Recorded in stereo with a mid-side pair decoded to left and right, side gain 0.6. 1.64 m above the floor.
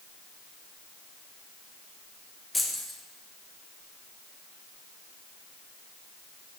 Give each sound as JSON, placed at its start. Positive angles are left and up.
{"t": 2.5, "sound": "keys jangling", "azimuth_deg": 5, "distance_m": 1.9}